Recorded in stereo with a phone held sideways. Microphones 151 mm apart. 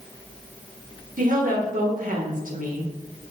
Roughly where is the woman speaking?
Right.